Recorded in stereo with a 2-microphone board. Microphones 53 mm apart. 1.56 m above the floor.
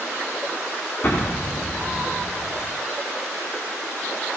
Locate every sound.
1.0 s an explosion: 35° left (ahead or behind), 3.5 m